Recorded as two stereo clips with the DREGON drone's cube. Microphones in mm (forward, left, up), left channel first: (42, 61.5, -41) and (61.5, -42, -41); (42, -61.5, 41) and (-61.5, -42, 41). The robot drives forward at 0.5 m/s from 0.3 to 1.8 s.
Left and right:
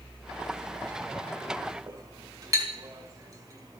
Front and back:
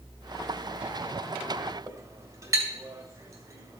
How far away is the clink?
About 1.6 m.